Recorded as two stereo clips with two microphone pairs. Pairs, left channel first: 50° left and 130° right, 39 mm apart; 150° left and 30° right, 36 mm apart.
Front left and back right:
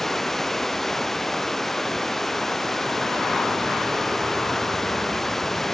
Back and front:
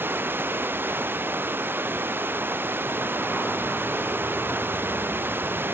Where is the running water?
30° right.